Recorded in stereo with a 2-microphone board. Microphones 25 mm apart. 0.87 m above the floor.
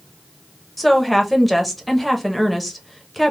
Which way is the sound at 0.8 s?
Centre (ahead or behind).